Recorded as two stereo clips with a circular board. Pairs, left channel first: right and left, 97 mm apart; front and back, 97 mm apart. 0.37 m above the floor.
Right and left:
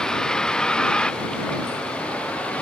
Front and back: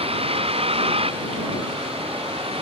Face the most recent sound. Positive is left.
turn(degrees=-170)